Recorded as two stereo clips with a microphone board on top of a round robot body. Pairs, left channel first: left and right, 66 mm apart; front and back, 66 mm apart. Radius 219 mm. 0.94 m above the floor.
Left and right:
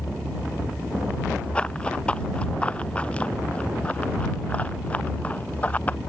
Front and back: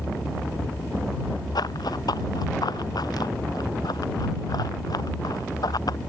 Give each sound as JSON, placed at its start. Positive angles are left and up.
{"t": 1.6, "sound": "running footsteps", "azimuth_deg": 15}